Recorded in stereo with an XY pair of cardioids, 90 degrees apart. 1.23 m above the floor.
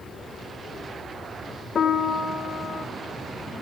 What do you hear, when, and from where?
1.8 s a piano: 55° left, 0.7 m